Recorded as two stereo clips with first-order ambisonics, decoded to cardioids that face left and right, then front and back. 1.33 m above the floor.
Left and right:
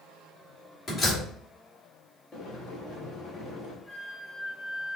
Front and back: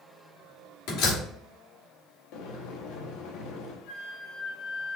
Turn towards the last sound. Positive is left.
turn(degrees=10)